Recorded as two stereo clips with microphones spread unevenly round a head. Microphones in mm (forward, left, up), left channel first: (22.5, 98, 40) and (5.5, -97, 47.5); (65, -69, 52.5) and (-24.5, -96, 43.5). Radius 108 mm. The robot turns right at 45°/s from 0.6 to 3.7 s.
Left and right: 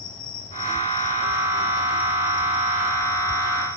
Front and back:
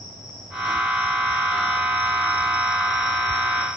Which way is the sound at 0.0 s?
135° left.